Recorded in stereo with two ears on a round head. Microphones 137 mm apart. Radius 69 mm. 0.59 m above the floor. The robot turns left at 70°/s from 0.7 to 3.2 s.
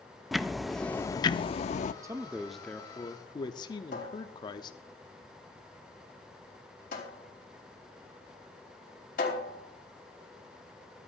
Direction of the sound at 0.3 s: Straight behind.